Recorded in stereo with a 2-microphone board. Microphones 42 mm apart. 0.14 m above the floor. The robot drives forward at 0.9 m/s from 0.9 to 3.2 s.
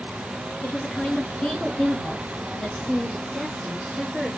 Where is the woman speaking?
35° left (ahead or behind), 1.4 m; by 4.3 s 25° left (ahead or behind), 2 m.